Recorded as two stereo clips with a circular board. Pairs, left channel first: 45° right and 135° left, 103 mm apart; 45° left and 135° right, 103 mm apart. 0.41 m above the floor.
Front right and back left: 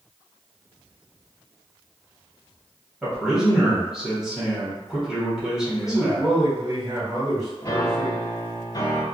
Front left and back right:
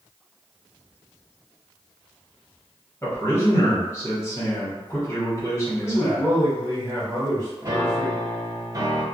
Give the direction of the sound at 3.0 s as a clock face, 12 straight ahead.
10 o'clock.